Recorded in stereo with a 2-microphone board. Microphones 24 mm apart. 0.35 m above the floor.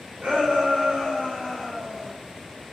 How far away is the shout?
About 1.7 m.